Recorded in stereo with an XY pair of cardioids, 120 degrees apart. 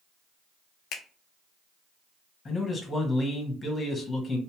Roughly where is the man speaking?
Ahead left.